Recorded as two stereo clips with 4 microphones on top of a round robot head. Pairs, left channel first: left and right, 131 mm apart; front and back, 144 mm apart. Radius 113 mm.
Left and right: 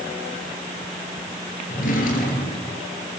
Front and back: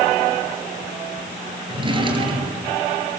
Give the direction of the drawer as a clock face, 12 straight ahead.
8 o'clock.